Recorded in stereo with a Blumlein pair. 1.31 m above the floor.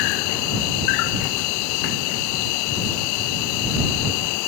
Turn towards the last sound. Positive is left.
turn(degrees=45)